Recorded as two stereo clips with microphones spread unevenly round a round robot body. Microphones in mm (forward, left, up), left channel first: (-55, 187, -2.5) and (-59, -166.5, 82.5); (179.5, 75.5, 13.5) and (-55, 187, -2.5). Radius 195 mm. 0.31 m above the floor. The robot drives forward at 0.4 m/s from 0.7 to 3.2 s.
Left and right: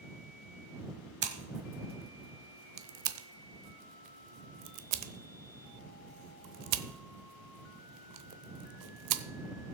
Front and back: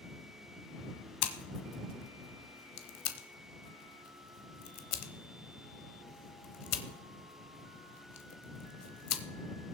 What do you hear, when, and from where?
1.2 s scissors: 20° right, 1.5 m; by 9.2 s 45° right, 0.9 m